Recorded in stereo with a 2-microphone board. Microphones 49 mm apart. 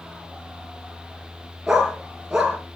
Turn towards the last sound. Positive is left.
turn(degrees=-10)  # may be behind; listen again after turning